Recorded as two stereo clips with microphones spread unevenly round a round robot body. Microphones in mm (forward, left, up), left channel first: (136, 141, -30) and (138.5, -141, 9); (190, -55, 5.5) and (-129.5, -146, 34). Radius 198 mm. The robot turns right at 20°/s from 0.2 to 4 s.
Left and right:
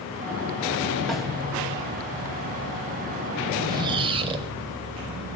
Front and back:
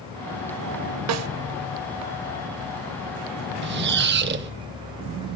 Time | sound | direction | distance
1.1 | a snare drum | 170° left | 0.6 m
3.6 | a squeak | 170° right | 0.9 m